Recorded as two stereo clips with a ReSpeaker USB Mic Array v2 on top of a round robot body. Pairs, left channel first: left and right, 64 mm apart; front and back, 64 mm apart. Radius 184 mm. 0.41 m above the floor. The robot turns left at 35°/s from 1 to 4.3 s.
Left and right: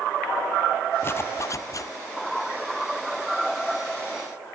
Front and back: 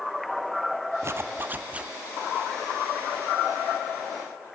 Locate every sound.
1.0 s a zipper: 140° left, 1.2 m; by 1.9 s 110° left, 1.2 m